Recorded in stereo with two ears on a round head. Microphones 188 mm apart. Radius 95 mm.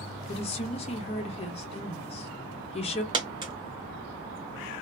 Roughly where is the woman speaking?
Left.